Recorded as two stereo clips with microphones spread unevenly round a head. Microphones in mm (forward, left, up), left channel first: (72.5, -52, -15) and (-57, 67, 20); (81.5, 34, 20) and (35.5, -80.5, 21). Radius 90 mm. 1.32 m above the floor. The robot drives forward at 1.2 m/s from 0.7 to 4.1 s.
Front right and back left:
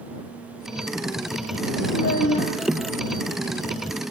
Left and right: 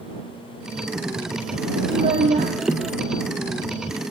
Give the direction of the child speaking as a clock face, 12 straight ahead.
3 o'clock.